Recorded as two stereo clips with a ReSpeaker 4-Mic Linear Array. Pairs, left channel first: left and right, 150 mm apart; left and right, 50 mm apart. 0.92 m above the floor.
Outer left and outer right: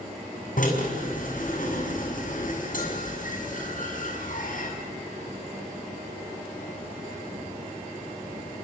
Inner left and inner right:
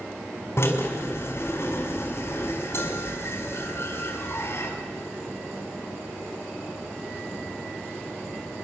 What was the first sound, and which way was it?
A drill, 60° left (ahead or behind).